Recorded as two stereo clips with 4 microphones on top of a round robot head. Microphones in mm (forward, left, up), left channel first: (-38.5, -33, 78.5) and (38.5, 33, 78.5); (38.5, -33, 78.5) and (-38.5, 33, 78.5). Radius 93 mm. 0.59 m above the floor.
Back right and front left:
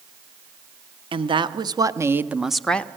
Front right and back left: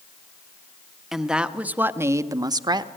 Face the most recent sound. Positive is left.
turn(degrees=150)